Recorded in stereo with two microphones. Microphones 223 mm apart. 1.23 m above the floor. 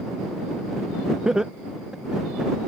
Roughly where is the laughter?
Centre.